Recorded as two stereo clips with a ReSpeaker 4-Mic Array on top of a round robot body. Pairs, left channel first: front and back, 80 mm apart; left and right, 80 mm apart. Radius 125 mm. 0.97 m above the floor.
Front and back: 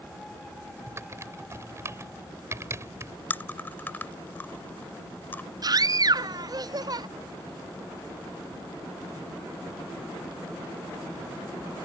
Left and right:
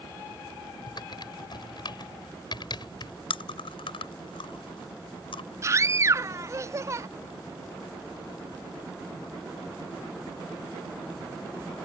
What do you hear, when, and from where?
0.9 s typing on a keyboard: 125° left
3.3 s chewing: 70° left
5.6 s a scream: 140° right